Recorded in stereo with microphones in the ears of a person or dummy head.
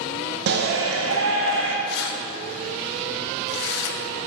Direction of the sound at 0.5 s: 60° right (ahead or behind).